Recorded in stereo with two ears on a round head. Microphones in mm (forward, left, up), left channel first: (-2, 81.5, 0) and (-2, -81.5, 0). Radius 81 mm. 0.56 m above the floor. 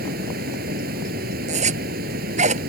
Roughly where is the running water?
Right.